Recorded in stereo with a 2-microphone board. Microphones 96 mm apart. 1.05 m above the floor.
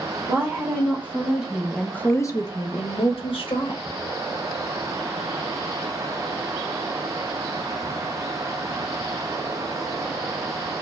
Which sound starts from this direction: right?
A woman speaking, at 0.3 s.